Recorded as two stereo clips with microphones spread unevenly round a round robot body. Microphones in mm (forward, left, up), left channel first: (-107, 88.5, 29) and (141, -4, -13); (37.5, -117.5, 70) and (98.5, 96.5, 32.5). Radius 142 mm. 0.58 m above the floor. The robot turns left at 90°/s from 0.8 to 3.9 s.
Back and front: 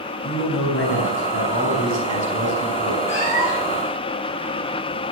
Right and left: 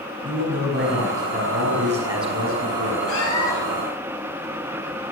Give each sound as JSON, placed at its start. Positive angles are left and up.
{"t": 0.2, "sound": "a man speaking", "azimuth_deg": 115, "distance_m": 5.5}
{"t": 3.1, "sound": "a cat meowing", "azimuth_deg": -145, "distance_m": 3.5}